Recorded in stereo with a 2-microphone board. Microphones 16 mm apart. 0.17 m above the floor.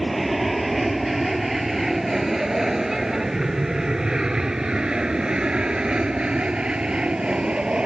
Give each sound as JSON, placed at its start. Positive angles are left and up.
{"t": 0.0, "sound": "an aircraft", "side_deg": 0}